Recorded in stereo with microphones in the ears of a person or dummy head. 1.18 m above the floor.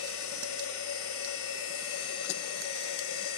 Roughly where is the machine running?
Left.